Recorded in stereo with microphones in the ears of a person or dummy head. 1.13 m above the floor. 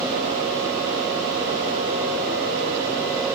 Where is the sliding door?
I don't hear a sliding door.